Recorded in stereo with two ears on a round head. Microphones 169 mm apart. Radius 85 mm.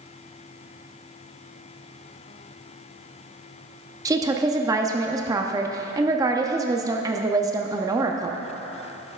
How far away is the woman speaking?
About 0.6 m.